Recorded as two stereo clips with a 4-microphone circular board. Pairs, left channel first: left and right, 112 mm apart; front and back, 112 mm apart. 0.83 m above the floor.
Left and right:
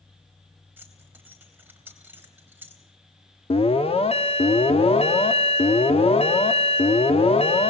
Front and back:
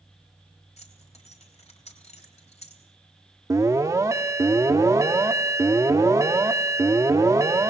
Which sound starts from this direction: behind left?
An alarm, at 3.5 s.